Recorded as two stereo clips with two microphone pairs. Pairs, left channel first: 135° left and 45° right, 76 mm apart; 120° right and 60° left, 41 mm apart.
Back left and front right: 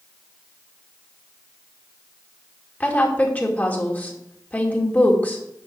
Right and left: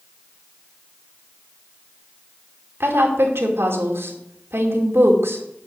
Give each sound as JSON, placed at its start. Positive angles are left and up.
{"t": 2.8, "sound": "a woman speaking", "azimuth_deg": 70, "distance_m": 2.5}